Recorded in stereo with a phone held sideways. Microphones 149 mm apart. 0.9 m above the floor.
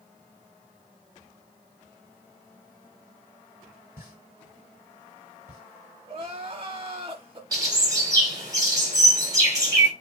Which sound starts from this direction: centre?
A pop, at 4.0 s.